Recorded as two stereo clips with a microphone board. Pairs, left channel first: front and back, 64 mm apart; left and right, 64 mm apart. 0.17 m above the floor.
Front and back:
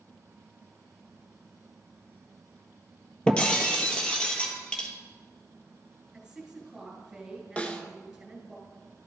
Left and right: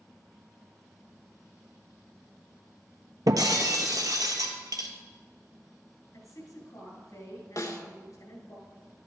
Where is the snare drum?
70° left, 0.7 m.